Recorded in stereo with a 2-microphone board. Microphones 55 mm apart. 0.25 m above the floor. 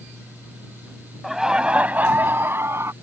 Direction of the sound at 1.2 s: 5° right (ahead or behind).